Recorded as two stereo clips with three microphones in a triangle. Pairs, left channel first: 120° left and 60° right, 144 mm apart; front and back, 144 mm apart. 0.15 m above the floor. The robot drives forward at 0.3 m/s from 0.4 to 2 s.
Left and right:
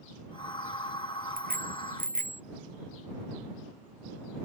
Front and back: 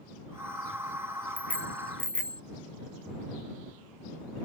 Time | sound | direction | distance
1.4 | a bicycle bell | 80° right | ?